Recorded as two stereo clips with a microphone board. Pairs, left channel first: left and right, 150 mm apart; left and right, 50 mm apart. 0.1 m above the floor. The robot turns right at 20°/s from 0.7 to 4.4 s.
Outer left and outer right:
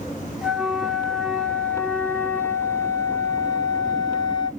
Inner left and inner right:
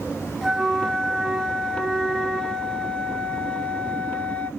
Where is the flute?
5° right, 0.7 m; by 4.5 s 70° left, 0.7 m.